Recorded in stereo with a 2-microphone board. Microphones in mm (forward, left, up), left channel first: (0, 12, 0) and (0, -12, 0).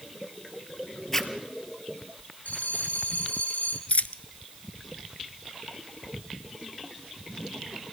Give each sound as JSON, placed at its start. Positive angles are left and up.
{"t": 1.1, "sound": "a zipper", "side_deg": 15, "distance_m": 1.5}
{"t": 2.5, "sound": "a bell", "side_deg": 80, "distance_m": 2.5}
{"t": 3.9, "sound": "a dropped coin", "side_deg": 75, "distance_m": 0.6}